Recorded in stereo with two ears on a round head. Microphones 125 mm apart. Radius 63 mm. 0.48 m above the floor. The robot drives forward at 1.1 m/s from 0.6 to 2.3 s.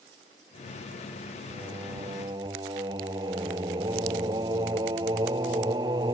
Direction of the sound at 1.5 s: 25° right (ahead or behind).